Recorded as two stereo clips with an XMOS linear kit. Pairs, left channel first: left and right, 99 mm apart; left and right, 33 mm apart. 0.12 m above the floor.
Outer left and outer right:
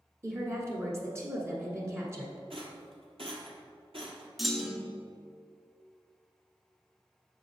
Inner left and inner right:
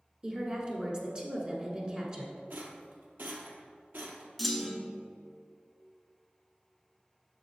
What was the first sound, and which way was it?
A woman speaking, 30° right (ahead or behind).